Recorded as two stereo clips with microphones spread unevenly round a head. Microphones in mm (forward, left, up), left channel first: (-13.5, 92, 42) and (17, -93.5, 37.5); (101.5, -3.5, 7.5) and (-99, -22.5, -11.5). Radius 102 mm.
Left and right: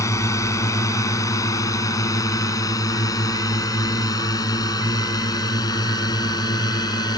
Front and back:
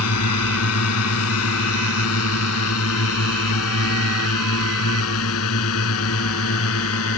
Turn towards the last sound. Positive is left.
turn(degrees=30)